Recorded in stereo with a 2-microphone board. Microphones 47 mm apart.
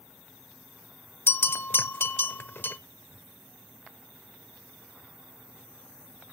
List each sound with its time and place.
1.3 s a bell: 50° left (ahead or behind), 0.6 m